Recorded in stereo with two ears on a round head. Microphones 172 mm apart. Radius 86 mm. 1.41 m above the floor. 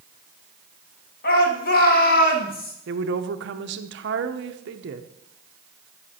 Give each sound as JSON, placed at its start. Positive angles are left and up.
{"t": 1.2, "sound": "a shout", "side_deg": 50, "distance_m": 2.0}
{"t": 2.9, "sound": "a woman speaking", "side_deg": -65, "distance_m": 0.7}